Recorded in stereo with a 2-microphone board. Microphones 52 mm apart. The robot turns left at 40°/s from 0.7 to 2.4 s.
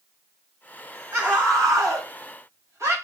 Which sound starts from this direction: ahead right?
A scream, at 1.1 s.